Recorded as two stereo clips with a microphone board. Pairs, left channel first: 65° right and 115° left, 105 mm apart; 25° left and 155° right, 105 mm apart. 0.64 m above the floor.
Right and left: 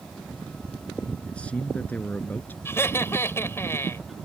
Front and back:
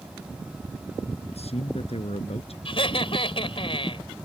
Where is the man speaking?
10° left; by 2.5 s 5° left.